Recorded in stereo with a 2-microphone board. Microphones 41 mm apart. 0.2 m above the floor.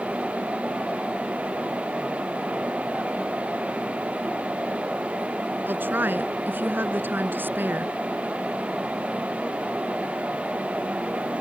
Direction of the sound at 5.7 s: 55° right (ahead or behind).